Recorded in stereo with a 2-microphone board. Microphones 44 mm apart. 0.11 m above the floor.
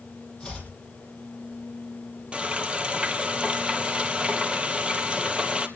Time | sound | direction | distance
0.4 | chopping | 15° left (ahead or behind) | 4.5 m
2.3 | frying | 25° right (ahead or behind) | 1.5 m